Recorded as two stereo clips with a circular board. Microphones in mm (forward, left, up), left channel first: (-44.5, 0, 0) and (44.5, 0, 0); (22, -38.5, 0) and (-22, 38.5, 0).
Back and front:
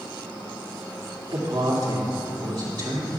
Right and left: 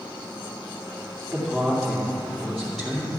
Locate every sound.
1.3 s a woman speaking: 30° left, 2.5 m